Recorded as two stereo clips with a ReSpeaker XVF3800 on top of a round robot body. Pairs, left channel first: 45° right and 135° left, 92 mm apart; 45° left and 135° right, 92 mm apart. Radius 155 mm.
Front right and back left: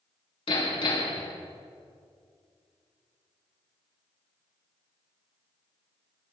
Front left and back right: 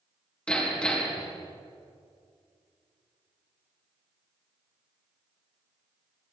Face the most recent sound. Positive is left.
turn(degrees=-35)